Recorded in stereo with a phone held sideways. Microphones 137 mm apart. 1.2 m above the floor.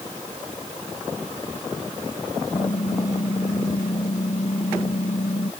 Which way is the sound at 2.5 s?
70° left (ahead or behind).